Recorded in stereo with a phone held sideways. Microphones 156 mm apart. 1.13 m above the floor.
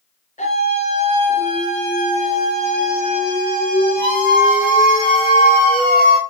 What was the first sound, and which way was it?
A scream, 55° left (ahead or behind).